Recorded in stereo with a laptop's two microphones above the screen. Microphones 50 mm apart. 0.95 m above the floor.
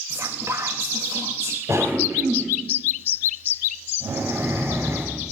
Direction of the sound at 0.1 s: 75° right (ahead or behind).